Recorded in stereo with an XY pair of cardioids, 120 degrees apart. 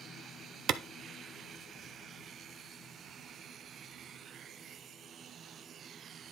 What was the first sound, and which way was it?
A clap, 60° right.